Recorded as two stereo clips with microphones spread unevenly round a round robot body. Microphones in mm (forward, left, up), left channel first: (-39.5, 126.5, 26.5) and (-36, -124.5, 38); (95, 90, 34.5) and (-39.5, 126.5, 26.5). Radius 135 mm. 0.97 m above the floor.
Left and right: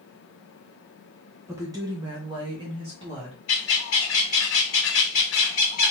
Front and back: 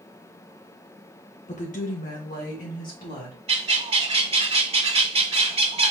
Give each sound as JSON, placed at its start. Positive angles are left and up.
{"t": 1.5, "sound": "a woman speaking", "azimuth_deg": -10, "distance_m": 1.0}
{"t": 3.5, "sound": "a bird", "azimuth_deg": 120, "distance_m": 1.9}